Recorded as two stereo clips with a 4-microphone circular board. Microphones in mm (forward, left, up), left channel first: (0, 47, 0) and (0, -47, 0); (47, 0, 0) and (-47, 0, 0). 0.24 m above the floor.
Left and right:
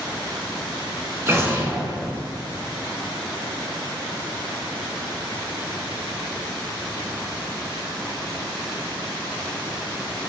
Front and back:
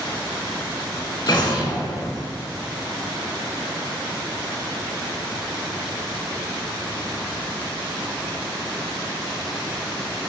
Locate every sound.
1.3 s an explosion: 35° right, 0.6 m